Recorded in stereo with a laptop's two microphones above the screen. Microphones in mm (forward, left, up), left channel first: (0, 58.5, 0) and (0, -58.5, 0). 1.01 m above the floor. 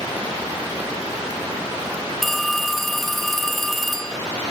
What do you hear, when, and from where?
2.2 s a phone ringing: centre (ahead or behind), 2 m